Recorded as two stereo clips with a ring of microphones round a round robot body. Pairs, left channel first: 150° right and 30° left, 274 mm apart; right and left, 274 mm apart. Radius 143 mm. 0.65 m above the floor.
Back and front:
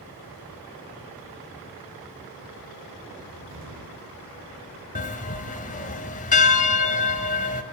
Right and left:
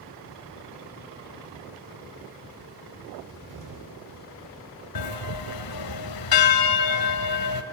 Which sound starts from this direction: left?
A cupboard door, at 3.2 s.